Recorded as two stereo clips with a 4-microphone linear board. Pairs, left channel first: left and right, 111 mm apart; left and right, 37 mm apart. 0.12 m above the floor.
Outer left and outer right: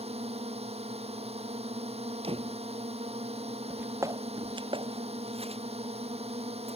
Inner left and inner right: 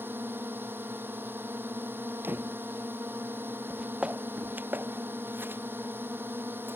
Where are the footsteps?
10° right (ahead or behind); by 6.8 s 75° right (ahead or behind).